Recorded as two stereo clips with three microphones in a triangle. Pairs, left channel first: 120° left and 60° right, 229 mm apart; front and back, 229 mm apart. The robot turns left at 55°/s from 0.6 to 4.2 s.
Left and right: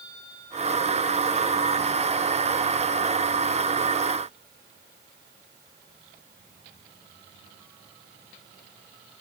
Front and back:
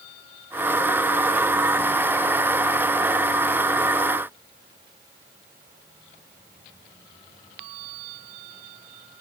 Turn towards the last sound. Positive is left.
No sound to turn to.